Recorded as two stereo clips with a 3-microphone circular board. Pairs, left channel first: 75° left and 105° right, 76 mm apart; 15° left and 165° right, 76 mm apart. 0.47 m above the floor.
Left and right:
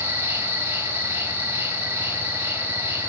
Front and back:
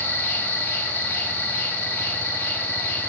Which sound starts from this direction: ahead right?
An insect, at 0.0 s.